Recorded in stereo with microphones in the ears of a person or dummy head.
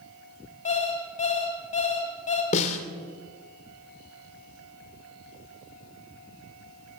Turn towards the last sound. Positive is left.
turn(degrees=40)  # may be behind; listen again after turning